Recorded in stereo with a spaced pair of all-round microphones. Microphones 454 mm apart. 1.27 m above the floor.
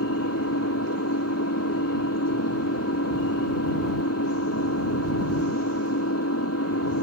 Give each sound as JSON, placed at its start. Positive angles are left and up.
{"t": 0.0, "sound": "an engine running", "side_deg": 30}